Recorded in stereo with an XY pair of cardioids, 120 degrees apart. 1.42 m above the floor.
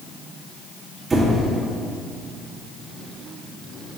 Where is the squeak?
20° right, 1.9 m.